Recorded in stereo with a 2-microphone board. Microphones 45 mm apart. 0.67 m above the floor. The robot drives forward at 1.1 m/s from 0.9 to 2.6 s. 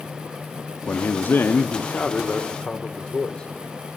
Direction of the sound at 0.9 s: 40° left (ahead or behind).